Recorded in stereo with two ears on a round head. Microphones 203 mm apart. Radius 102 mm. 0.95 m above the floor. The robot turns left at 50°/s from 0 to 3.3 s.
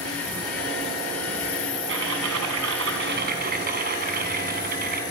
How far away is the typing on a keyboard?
About 3 m.